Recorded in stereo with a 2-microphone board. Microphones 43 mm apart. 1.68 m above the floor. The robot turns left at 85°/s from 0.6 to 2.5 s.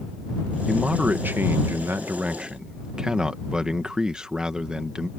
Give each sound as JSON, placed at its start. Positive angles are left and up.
{"t": 0.7, "sound": "a man speaking", "azimuth_deg": -5}